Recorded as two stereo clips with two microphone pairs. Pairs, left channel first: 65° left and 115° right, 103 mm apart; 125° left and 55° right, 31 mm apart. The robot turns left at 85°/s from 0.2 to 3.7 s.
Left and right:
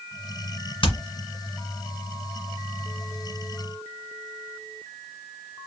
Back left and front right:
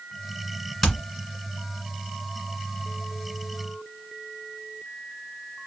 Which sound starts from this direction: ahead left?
Hammering, at 0.8 s.